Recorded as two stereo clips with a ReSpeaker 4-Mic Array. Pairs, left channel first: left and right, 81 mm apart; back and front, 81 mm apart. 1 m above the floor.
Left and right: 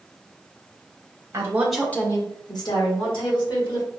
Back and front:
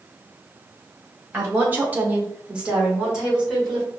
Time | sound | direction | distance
1.3 | a woman speaking | 65° right | 0.8 m